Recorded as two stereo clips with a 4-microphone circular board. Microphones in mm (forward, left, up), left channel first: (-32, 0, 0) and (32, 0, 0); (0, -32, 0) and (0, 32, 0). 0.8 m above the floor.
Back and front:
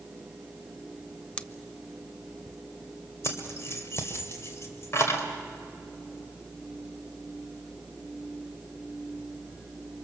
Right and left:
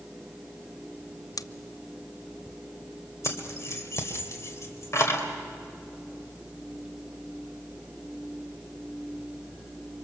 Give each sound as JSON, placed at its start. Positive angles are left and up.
{"t": 1.4, "sound": "scissors", "azimuth_deg": -110, "distance_m": 0.6}
{"t": 3.2, "sound": "keys jangling", "azimuth_deg": -135, "distance_m": 2.0}